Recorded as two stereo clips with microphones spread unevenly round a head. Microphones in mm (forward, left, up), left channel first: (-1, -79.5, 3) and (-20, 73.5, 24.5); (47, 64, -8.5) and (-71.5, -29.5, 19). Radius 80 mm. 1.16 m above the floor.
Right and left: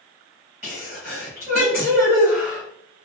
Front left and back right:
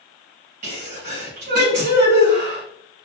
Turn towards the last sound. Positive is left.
turn(degrees=-175)